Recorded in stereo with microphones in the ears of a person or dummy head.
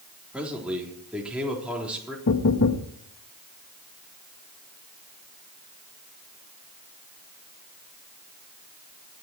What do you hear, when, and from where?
0.3 s a man speaking: 5° right (ahead or behind), 3.5 m
2.3 s knocking: 55° left (ahead or behind), 1.3 m